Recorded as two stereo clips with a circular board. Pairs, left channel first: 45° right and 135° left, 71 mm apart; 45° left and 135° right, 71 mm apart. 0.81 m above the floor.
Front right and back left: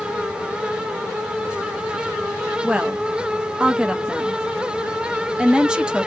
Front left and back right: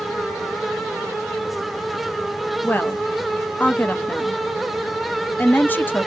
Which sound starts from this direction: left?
A woman speaking, at 2.6 s.